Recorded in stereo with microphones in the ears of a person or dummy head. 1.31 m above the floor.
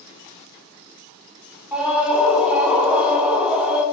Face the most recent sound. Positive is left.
turn(degrees=-5)  # may be behind; listen again after turning